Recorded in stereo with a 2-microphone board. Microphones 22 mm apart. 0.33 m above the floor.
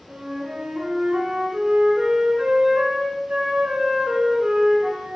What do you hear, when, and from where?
0.1 s a flute: 40° right (ahead or behind), 5 m